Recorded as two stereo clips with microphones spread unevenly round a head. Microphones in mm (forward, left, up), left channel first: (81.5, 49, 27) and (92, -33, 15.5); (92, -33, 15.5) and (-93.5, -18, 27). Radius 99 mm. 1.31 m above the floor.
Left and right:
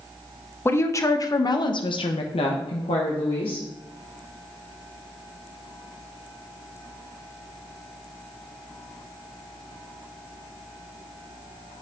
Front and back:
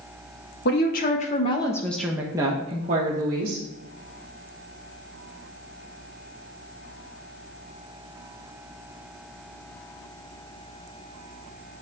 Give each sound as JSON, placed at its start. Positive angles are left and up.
{"t": 0.7, "sound": "a woman speaking", "azimuth_deg": 35, "distance_m": 1.4}